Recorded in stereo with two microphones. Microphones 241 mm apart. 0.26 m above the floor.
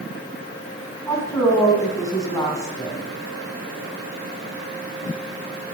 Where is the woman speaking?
15° left (ahead or behind), 2.5 m.